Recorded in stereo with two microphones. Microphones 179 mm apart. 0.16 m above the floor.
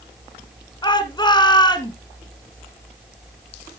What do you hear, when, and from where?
0.8 s a shout: 25° left (ahead or behind), 1.4 m